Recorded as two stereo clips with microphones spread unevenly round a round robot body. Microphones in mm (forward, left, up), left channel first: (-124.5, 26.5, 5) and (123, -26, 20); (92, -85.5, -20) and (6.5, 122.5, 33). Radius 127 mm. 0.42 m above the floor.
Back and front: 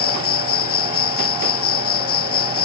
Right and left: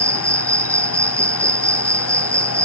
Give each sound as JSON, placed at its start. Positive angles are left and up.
{"t": 0.0, "sound": "an insect", "azimuth_deg": -165}